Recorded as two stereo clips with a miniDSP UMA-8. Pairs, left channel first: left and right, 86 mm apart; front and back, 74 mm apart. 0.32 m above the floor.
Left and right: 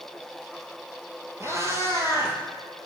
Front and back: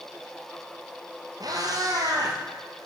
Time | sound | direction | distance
1.4 | a cat meowing | 145° right | 3 m